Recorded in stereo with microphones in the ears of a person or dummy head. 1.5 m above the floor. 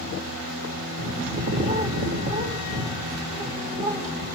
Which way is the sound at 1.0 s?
50° right (ahead or behind).